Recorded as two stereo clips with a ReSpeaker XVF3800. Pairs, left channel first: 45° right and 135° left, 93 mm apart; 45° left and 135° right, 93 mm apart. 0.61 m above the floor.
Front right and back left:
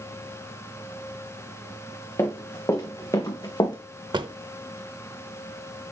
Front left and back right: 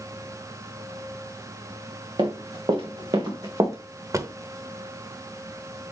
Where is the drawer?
170° left, 0.7 m.